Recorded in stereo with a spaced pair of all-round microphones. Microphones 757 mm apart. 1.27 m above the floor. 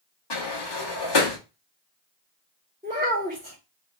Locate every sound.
0.3 s a sliding door: 35° left (ahead or behind), 0.7 m
2.8 s a child speaking: 10° right (ahead or behind), 1.7 m